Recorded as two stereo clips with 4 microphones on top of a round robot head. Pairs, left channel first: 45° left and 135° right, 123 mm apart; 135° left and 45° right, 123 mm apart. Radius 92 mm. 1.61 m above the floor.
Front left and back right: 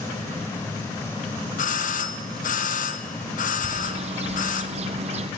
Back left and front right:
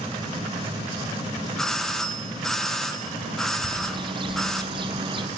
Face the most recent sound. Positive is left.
turn(degrees=-100)